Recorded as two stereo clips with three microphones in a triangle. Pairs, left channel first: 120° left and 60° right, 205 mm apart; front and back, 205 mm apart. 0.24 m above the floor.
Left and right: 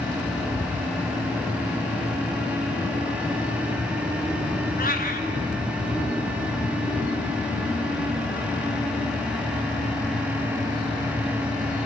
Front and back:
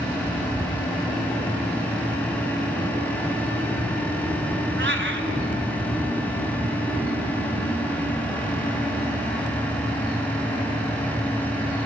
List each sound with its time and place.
4.8 s a cat meowing: 160° left, 1.6 m